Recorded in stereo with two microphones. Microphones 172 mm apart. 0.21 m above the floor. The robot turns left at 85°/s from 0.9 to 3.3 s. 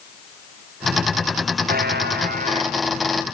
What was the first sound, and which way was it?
A buzzer, 60° right.